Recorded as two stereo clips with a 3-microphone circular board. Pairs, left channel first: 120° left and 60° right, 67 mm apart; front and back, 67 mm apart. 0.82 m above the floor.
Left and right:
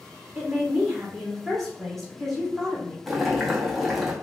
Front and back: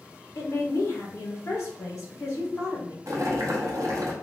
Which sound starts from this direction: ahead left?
A woman speaking, at 0.3 s.